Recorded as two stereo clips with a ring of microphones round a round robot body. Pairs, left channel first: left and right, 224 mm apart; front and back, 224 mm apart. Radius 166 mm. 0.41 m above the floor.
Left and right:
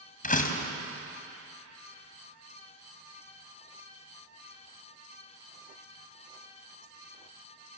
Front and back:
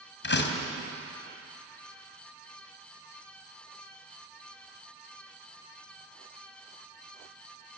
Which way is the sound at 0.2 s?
35° left.